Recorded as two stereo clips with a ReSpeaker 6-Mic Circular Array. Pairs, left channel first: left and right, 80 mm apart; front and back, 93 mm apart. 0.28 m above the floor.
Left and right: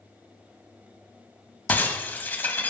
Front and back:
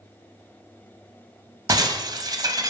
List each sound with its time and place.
1.7 s breaking glass: 150° left, 0.8 m